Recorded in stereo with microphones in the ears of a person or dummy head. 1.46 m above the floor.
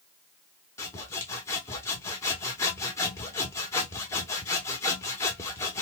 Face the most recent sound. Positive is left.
turn(degrees=25)  # may be behind; listen again after turning